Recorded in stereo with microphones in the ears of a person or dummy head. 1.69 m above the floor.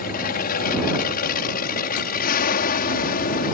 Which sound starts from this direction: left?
An aircraft, at 0.0 s.